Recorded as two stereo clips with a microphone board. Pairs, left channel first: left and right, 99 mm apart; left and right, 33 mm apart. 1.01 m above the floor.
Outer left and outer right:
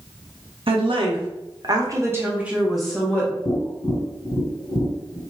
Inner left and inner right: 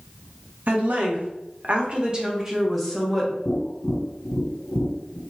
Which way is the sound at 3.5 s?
65° left (ahead or behind).